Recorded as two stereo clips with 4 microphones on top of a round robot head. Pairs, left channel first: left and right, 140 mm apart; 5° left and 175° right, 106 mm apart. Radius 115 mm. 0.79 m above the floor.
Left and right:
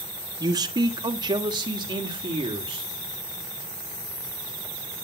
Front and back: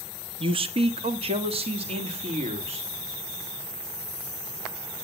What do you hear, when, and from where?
0.4 s a man speaking: 150° right, 1.2 m